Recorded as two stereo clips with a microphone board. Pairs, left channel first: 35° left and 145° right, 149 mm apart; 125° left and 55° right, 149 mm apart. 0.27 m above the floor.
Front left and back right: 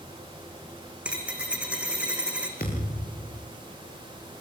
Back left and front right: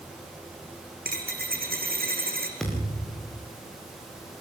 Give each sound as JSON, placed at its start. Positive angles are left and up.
{"t": 1.1, "sound": "a dropped coin", "azimuth_deg": -65, "distance_m": 3.5}
{"t": 2.6, "sound": "a thud", "azimuth_deg": 35, "distance_m": 8.5}